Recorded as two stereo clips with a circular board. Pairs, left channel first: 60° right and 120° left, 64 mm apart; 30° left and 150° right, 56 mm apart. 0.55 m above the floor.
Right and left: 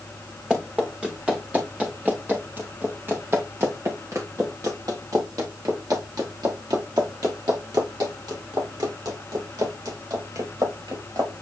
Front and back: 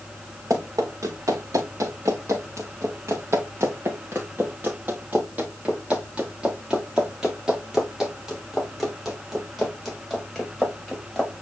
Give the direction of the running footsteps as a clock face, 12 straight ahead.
5 o'clock.